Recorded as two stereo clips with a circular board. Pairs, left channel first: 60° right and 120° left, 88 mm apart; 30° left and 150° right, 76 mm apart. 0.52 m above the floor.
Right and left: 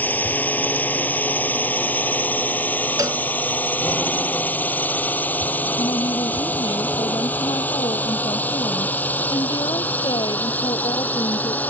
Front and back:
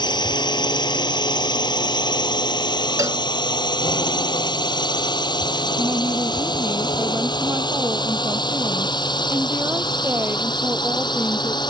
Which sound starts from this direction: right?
A woman speaking, at 5.8 s.